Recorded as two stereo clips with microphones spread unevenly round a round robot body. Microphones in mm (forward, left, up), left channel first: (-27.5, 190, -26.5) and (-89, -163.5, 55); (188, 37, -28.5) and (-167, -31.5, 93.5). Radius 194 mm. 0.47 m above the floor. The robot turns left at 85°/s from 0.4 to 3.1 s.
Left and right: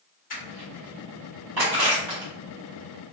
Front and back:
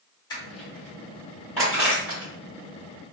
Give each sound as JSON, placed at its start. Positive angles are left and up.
{"t": 0.3, "sound": "crushing", "azimuth_deg": 50, "distance_m": 1.5}